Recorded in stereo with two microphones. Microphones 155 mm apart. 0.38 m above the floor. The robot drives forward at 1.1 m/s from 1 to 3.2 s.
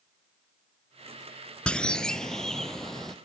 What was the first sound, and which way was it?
A bird, 5° left (ahead or behind).